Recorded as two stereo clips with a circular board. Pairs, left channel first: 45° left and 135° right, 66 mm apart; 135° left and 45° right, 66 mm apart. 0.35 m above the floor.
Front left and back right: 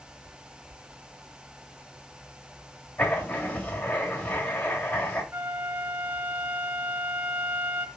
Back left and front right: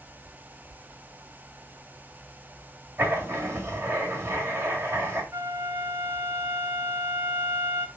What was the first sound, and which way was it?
Writing, 15° right.